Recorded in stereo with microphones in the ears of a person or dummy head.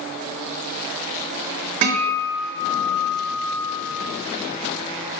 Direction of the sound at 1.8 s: 40° right (ahead or behind).